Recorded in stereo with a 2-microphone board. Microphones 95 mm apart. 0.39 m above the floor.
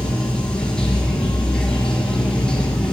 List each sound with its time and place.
0.0 s running water: 10° left (ahead or behind), 4.5 m